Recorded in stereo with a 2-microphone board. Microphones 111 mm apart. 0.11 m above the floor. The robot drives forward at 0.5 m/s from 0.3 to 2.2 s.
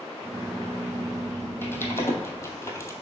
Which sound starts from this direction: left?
Typing on a keyboard, at 1.6 s.